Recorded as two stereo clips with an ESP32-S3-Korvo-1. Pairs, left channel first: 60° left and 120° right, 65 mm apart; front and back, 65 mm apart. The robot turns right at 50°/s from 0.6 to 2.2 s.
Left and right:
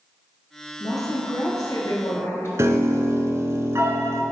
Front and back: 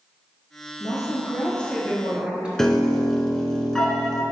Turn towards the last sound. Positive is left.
turn(degrees=-80)